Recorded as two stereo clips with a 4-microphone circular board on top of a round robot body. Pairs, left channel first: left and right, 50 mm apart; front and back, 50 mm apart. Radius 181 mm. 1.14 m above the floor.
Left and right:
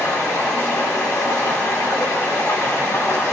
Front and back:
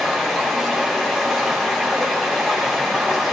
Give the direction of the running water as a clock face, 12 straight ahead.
9 o'clock.